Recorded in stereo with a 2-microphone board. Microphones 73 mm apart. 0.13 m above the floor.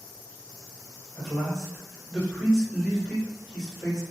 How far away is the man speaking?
About 1.6 m.